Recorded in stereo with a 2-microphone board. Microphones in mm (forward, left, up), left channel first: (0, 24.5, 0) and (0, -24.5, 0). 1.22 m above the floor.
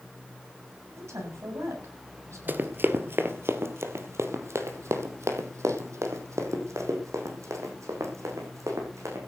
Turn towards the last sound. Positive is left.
turn(degrees=-75)  # may be behind; listen again after turning